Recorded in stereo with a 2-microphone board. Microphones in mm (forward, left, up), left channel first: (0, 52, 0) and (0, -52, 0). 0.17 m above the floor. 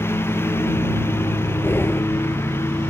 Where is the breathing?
20° left (ahead or behind).